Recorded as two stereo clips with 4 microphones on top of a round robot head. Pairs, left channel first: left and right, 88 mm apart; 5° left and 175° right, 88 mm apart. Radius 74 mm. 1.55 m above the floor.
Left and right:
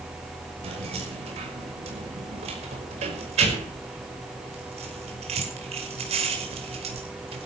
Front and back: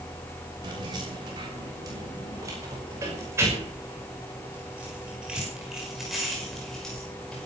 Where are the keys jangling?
120° right, 6 m; by 7.5 s 80° right, 5.5 m.